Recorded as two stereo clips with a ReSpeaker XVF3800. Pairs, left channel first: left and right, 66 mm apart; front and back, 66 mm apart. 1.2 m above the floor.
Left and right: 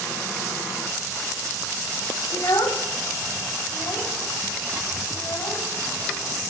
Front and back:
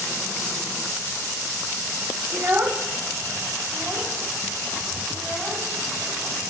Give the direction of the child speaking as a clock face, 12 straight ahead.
8 o'clock.